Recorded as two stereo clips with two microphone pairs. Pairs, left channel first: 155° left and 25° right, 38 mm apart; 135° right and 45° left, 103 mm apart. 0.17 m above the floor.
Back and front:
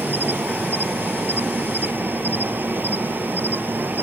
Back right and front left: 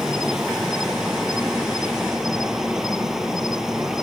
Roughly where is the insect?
Ahead right.